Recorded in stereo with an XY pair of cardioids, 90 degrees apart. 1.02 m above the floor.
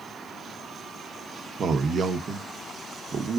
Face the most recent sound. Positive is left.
turn(degrees=-55)